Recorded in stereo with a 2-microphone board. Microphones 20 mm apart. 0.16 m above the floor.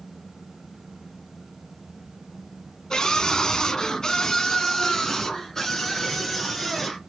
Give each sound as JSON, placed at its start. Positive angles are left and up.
{"t": 2.9, "sound": "a scream", "side_deg": 35, "distance_m": 1.9}